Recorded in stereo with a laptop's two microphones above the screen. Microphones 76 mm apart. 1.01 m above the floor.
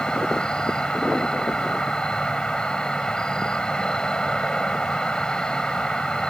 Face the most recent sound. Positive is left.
turn(degrees=10)  # may be behind; listen again after turning